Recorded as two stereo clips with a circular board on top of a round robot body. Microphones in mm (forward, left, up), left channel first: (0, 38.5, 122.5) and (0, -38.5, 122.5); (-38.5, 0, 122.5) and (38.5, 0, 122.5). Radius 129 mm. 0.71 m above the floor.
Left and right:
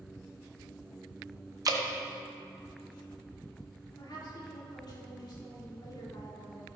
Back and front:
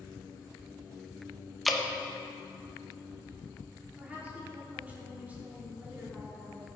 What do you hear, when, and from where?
1.6 s dripping: 90° right, 1.0 m
4.0 s a woman speaking: 70° left, 3 m